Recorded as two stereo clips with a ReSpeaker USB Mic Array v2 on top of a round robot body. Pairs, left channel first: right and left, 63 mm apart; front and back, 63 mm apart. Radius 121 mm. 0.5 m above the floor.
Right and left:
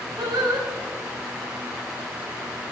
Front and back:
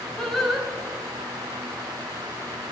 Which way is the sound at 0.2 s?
85° left.